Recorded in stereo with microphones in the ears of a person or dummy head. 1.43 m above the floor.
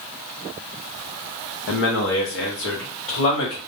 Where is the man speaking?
65° left (ahead or behind), 0.6 m; by 3.6 s 70° left (ahead or behind), 1.6 m.